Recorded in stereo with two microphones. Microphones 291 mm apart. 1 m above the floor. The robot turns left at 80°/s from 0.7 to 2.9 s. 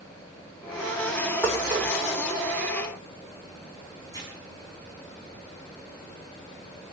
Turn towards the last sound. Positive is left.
turn(degrees=10)  # may be behind; listen again after turning